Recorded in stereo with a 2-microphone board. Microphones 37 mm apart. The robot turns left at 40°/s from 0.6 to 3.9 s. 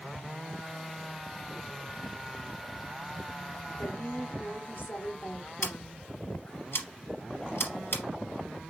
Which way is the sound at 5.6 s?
80° left.